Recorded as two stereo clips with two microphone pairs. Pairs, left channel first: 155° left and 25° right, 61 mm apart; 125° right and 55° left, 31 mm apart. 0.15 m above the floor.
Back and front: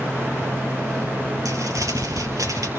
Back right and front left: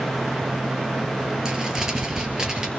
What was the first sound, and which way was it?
Crumpling, 15° right.